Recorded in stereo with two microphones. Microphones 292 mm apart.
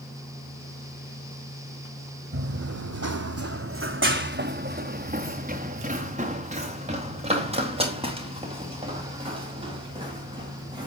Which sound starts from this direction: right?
Running footsteps, at 2.3 s.